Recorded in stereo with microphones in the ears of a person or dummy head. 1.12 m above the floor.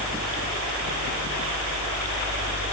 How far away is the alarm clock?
I don't hear an alarm clock.